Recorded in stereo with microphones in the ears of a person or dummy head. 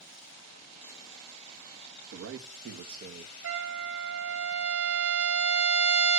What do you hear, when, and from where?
2.1 s a man speaking: 80° right, 1.4 m; by 3.3 s 45° right (ahead or behind), 1.2 m
3.4 s a trumpet: 70° right (ahead or behind), 2.5 m